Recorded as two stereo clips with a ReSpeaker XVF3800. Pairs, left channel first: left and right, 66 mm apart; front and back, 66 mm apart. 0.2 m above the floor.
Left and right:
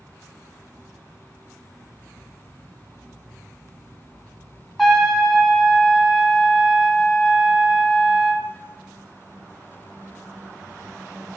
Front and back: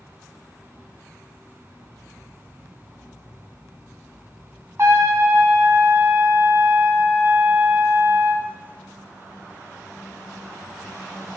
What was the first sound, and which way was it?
A trumpet, straight behind.